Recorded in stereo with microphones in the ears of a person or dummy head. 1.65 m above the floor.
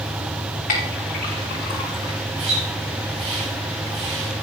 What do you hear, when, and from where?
0.7 s a clink: 45° left (ahead or behind), 5.5 m
2.4 s a splash: 35° right (ahead or behind), 7 m